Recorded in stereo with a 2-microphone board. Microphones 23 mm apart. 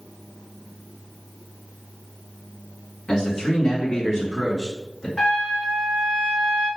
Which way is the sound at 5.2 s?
25° left (ahead or behind).